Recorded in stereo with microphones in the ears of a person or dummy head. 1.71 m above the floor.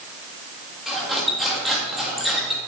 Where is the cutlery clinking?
Centre (ahead or behind), 1.5 m.